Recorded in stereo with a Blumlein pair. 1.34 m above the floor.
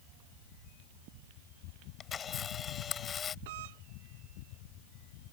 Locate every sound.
2.0 s a camera shutter: 20° left
3.5 s a doorbell: 50° right